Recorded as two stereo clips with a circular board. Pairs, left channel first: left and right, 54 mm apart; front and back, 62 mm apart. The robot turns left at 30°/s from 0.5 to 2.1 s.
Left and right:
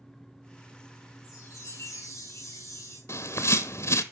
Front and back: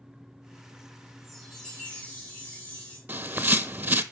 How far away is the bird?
About 0.7 m.